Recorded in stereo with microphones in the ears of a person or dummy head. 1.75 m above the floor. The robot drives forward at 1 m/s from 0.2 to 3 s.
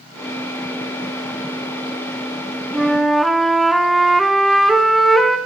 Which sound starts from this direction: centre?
A flute, at 2.7 s.